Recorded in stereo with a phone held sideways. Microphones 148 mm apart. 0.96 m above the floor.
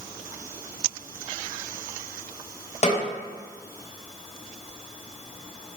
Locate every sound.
2.8 s a snare drum: 50° left (ahead or behind), 0.8 m